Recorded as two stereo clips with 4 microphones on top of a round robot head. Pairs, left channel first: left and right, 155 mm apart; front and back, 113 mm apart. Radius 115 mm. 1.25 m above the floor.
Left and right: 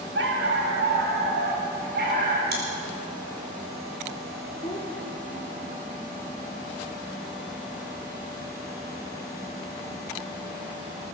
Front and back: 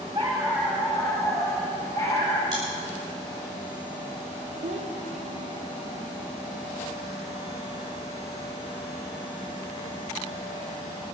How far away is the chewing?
About 3.5 m.